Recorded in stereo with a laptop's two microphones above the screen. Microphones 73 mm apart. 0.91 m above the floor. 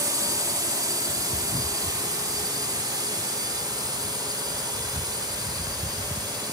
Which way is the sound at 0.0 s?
55° right (ahead or behind).